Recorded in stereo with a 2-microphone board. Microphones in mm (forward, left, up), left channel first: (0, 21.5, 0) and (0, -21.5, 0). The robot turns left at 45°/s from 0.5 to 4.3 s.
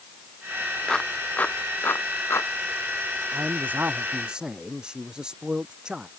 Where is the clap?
10° left (ahead or behind); by 2.5 s 85° left.